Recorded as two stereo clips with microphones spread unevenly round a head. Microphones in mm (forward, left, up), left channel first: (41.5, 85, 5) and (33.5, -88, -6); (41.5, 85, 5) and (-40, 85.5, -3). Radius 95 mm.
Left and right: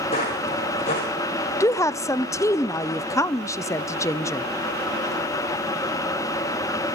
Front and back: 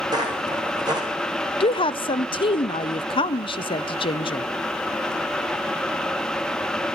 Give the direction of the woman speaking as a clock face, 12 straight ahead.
12 o'clock.